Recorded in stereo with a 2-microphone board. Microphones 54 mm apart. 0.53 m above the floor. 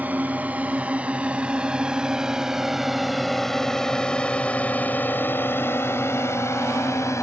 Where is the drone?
35° right (ahead or behind); by 7.2 s 65° left (ahead or behind).